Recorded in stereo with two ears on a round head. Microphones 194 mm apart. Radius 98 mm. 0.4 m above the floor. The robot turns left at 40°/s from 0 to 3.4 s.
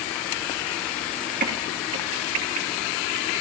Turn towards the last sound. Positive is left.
turn(degrees=-55)  # may be behind; listen again after turning